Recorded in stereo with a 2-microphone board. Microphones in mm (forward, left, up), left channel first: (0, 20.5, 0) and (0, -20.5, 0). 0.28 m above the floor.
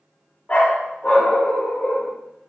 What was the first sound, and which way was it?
A dog barking, 35° left (ahead or behind).